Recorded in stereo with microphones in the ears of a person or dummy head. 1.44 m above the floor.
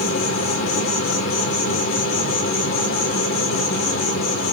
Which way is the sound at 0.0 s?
50° left (ahead or behind).